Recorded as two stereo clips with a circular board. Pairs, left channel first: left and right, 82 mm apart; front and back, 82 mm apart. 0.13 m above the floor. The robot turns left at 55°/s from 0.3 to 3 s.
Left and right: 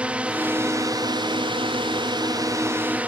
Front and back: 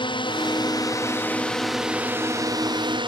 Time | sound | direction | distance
0.0 | a drone | 15° right | ?